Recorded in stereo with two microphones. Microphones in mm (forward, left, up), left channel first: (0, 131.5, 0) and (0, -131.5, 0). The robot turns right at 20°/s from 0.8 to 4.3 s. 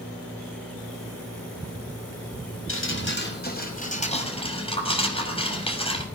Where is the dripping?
125° left, 6.5 m; by 6.0 s 160° left, 6.5 m.